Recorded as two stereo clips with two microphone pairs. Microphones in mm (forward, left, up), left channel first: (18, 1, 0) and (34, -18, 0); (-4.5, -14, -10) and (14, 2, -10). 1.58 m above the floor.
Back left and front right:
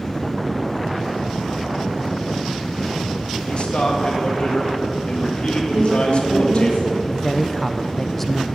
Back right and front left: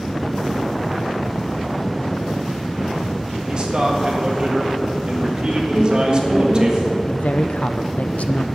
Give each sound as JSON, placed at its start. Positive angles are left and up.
{"t": 3.5, "sound": "a man speaking", "azimuth_deg": 90, "distance_m": 1.8}
{"t": 5.7, "sound": "a woman speaking", "azimuth_deg": -30, "distance_m": 4.5}
{"t": 7.1, "sound": "a woman speaking", "azimuth_deg": -150, "distance_m": 0.7}